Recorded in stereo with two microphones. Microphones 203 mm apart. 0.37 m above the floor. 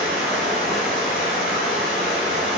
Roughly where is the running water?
Centre.